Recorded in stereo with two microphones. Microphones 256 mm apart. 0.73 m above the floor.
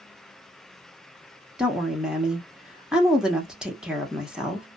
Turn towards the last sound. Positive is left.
turn(degrees=-5)  # may be behind; listen again after turning